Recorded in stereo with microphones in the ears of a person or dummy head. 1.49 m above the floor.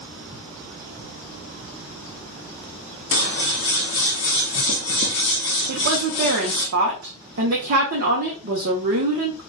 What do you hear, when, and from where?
3.1 s scissors: 55° left (ahead or behind), 0.7 m
5.7 s a woman speaking: 45° right (ahead or behind), 0.7 m